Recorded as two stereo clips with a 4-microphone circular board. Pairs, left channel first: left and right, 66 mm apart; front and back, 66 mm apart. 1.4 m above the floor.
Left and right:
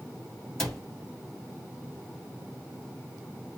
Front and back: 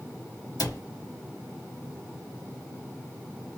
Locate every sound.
0.6 s a cupboard door: 10° left, 1.4 m